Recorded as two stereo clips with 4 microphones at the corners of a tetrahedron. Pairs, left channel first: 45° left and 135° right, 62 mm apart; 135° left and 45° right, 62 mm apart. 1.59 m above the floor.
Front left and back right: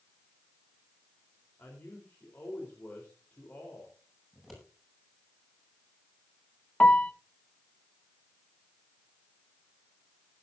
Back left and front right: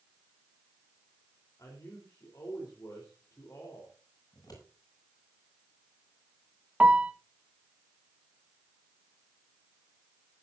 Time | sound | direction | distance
1.6 | a man speaking | 110° left | 4 m
4.3 | scissors | 135° left | 9 m
6.8 | a piano | straight ahead | 0.9 m